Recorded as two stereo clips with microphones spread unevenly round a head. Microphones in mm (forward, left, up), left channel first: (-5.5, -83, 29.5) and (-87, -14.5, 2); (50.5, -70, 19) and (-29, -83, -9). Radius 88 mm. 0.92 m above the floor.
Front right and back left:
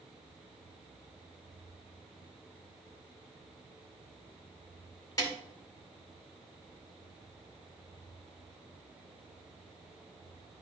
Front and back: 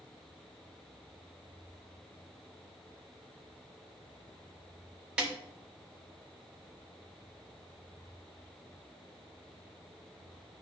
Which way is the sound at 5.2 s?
100° right.